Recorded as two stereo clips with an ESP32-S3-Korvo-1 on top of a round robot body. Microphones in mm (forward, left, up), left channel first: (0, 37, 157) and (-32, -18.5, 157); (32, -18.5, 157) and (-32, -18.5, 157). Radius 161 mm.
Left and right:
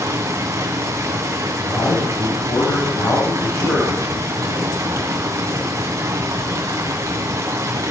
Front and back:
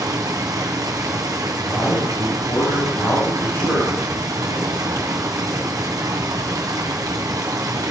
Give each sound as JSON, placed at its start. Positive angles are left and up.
{"t": 0.0, "sound": "running water", "azimuth_deg": -155, "distance_m": 1.4}
{"t": 1.6, "sound": "a man speaking", "azimuth_deg": 50, "distance_m": 6.0}